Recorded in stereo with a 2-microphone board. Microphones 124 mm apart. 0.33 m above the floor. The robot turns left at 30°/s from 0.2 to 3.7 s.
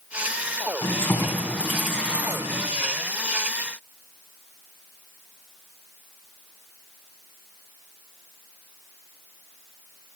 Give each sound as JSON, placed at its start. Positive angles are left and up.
{"t": 0.8, "sound": "keys jangling", "azimuth_deg": 30, "distance_m": 1.9}